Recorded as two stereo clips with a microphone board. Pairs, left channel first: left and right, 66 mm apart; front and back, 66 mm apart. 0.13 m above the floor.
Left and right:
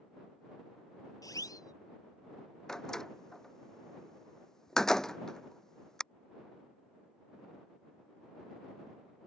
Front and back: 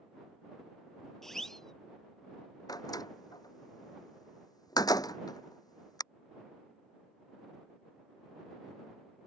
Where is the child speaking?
I don't hear a child speaking.